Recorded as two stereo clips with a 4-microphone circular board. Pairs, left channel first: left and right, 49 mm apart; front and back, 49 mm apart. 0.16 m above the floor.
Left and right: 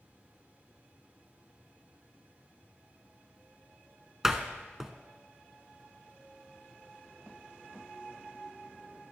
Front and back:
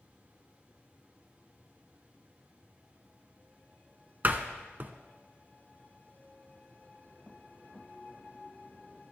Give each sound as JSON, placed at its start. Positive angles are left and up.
{"t": 4.2, "sound": "a door slam", "azimuth_deg": -165, "distance_m": 0.9}